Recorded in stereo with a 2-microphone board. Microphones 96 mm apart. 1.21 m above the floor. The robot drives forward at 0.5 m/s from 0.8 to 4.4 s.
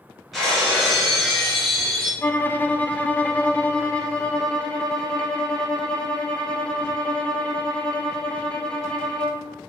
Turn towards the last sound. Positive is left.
turn(degrees=10)  # may be behind; listen again after turning